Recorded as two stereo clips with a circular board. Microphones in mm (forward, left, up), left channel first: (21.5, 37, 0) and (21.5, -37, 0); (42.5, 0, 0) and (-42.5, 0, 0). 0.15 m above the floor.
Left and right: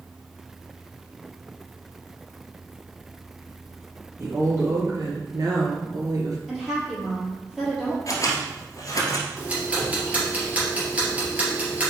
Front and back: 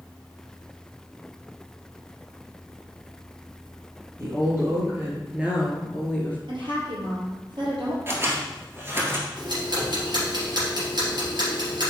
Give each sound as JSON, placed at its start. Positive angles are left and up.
{"t": 4.2, "sound": "a woman speaking", "azimuth_deg": -130, "distance_m": 3.0}
{"t": 6.5, "sound": "a woman speaking", "azimuth_deg": -175, "distance_m": 3.5}
{"t": 8.1, "sound": "scissors", "azimuth_deg": 125, "distance_m": 1.7}
{"t": 9.4, "sound": "ticking", "azimuth_deg": -160, "distance_m": 3.0}